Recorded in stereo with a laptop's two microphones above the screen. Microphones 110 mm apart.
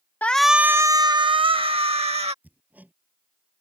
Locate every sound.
0.2 s a shout: 15° left (ahead or behind); by 2.3 s 65° right (ahead or behind)
2.4 s hammering: 15° right (ahead or behind)